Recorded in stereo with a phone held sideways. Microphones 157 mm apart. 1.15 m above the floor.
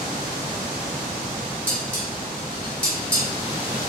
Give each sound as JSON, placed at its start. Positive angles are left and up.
{"t": 1.7, "sound": "dishes clattering", "side_deg": 10, "distance_m": 1.3}